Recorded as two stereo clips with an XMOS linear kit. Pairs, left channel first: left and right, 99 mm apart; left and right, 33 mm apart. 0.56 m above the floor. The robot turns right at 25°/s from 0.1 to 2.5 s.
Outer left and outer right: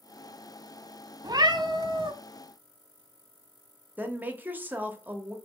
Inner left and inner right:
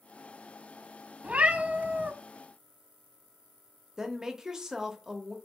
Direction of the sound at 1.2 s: 40° right (ahead or behind).